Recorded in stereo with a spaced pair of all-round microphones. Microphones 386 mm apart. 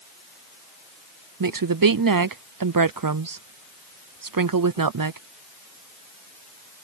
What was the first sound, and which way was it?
A woman speaking, 55° right (ahead or behind).